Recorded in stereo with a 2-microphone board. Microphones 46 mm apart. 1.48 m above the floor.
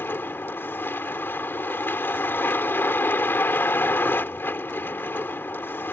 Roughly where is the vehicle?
Left.